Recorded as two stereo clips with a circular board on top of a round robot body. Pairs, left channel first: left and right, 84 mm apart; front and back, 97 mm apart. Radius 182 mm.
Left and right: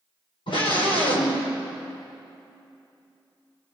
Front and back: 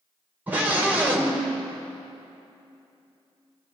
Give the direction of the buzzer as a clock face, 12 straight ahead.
No buzzer in this recording.